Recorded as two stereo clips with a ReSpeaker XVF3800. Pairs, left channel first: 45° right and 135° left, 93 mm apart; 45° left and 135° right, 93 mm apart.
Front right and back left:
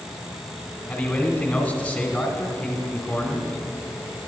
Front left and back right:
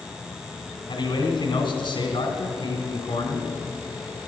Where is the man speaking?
40° left, 1.7 m.